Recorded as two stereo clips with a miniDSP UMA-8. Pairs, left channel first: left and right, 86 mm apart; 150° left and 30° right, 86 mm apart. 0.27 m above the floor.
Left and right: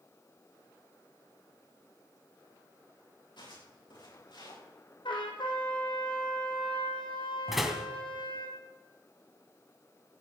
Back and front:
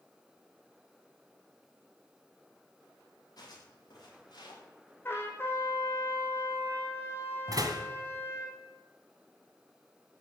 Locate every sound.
3.4 s footsteps: 110° left, 10 m; by 4.6 s 120° left, 9.5 m
5.0 s a trumpet: 90° left, 3 m
7.5 s a door slam: 5° right, 1.8 m